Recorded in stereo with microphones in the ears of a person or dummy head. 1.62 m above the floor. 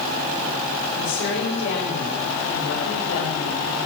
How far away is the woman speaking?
About 6.5 m.